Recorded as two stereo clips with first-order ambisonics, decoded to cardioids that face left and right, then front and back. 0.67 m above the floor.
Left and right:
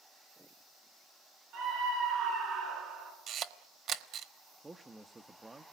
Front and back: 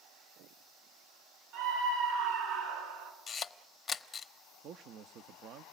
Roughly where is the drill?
I don't hear a drill.